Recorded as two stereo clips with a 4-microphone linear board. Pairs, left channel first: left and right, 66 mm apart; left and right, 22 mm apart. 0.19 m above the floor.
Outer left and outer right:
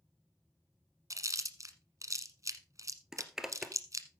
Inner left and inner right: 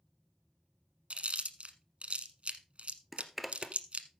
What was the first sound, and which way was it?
Chewing, 55° right (ahead or behind).